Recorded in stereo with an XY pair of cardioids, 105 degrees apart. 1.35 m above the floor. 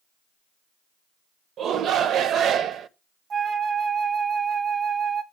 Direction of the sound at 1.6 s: 60° right.